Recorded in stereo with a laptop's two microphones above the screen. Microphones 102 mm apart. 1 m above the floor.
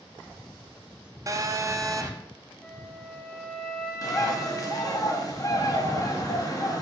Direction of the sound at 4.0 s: 35° left (ahead or behind).